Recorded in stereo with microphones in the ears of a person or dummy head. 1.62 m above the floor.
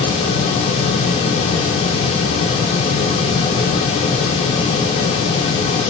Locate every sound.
Only background noise.